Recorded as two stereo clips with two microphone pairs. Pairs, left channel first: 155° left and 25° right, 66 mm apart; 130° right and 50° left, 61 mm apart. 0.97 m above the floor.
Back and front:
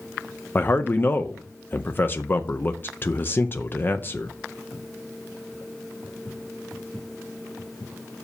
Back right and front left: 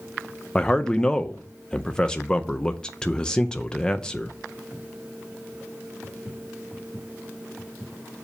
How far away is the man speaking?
About 0.6 m.